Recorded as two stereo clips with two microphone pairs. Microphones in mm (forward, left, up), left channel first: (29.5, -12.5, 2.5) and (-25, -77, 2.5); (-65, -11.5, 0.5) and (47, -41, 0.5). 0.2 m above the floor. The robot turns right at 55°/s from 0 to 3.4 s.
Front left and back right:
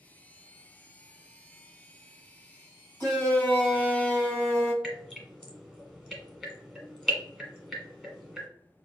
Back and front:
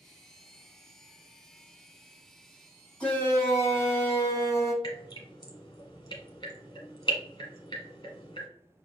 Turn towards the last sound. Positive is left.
turn(degrees=135)